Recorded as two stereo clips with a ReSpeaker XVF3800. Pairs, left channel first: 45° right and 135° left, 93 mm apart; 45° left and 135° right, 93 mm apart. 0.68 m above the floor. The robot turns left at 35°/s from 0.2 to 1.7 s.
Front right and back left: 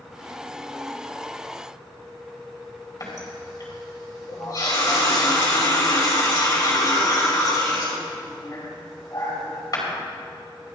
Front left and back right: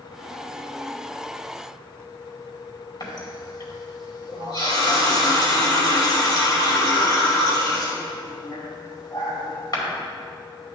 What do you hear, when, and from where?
3.0 s a running tap: 5° left, 2.5 m